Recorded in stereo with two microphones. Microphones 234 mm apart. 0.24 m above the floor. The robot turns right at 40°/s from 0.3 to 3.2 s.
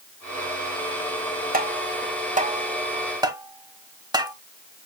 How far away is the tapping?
About 1.1 m.